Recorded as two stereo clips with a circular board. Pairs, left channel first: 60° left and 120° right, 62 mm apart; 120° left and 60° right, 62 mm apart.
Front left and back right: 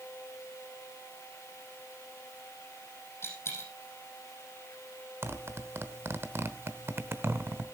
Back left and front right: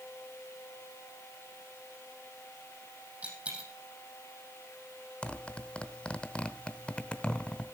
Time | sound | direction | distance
3.2 | a dropped coin | 5° left | 5 m
5.2 | a zipper | 170° right | 0.9 m